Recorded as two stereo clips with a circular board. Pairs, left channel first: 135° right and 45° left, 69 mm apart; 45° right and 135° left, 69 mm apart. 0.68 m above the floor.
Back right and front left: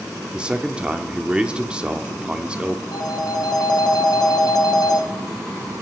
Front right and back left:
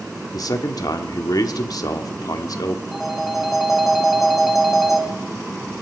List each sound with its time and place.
0.3 s a man speaking: 30° right, 1.2 m
2.9 s a phone ringing: 140° right, 1.8 m